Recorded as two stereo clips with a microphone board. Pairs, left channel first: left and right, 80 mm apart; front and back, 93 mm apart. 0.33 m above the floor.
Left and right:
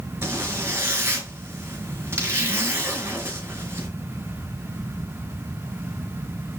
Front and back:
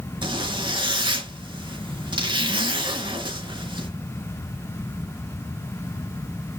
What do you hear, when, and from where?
0.2 s a zipper: 150° right, 4 m